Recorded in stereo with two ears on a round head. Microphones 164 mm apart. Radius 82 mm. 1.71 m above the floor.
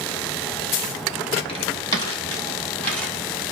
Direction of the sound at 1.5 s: 30° left (ahead or behind).